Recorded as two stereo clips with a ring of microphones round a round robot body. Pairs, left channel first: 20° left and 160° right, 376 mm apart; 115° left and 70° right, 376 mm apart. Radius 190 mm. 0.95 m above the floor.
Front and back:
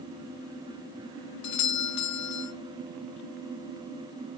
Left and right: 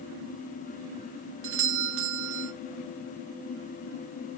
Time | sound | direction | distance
1.4 | a doorbell | 15° right | 1.0 m